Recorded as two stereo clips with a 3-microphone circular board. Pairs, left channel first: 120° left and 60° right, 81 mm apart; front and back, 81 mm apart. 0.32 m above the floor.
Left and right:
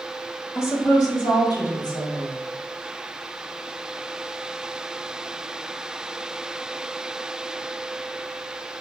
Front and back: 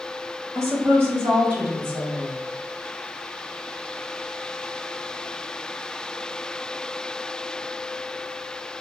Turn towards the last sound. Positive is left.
turn(degrees=120)